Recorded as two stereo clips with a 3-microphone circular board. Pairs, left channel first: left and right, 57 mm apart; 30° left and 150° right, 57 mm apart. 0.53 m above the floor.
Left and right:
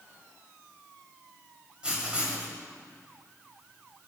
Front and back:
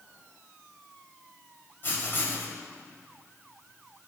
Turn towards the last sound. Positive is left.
turn(degrees=-15)